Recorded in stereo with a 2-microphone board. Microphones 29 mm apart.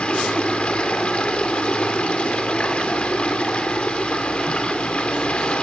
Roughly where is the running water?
Left.